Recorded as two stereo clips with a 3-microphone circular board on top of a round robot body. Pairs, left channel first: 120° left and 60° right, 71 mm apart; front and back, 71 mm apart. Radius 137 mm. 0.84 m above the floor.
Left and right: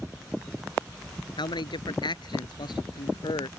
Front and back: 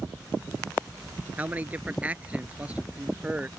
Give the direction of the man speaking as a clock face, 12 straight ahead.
8 o'clock.